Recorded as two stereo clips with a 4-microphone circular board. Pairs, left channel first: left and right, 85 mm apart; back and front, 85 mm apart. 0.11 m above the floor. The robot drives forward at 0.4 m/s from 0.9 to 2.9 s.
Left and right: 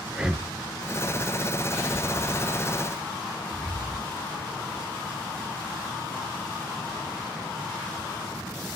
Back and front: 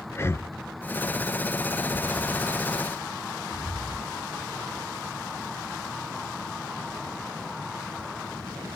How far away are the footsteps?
About 2 m.